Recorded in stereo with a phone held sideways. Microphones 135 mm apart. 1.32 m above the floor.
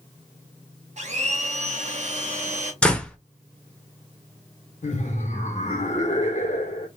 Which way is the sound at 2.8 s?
5° left (ahead or behind).